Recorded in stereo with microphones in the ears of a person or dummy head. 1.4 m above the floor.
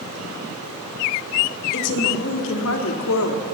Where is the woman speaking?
70° left (ahead or behind), 3.5 m; by 3.5 s 90° left, 3 m.